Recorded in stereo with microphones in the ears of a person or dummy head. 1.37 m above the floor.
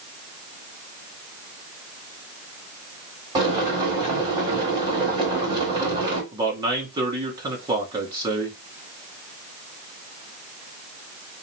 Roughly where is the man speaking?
Centre.